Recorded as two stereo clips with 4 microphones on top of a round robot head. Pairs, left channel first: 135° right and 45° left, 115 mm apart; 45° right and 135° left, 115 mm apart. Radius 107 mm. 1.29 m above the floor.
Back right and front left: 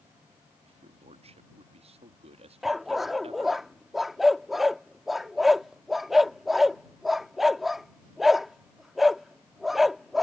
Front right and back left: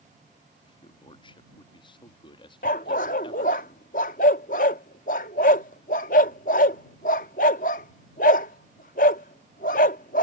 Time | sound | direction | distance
0.6 | a man speaking | 5° left | ?
2.6 | a dog barking | 45° right | ?